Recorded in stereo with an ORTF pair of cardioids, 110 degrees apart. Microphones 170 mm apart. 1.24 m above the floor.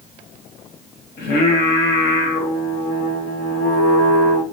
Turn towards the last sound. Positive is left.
turn(degrees=60)